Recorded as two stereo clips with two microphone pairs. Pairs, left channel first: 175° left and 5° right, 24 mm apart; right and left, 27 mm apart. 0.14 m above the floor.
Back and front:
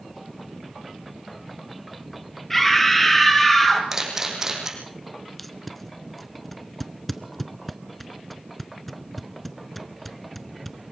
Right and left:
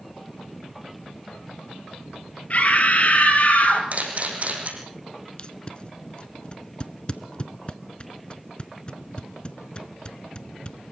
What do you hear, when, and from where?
2.5 s a scream: 115° right, 3.5 m; by 3.8 s 110° right, 4 m
3.9 s a camera shutter: 60° left, 4.5 m
5.4 s tape being pulled: 110° right, 0.9 m